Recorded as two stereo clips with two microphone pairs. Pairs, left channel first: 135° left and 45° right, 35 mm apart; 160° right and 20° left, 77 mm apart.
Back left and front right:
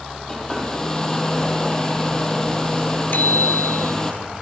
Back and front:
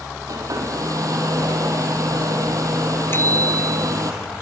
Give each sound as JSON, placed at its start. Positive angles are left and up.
{"t": 0.3, "sound": "a hair dryer", "azimuth_deg": 60, "distance_m": 4.0}
{"t": 3.1, "sound": "a bicycle bell", "azimuth_deg": 145, "distance_m": 3.0}